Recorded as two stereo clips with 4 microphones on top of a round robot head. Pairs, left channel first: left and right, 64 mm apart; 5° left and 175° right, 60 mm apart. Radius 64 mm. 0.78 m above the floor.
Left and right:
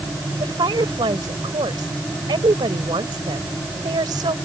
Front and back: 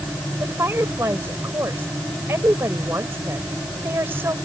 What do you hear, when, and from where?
0.4 s a woman speaking: 115° right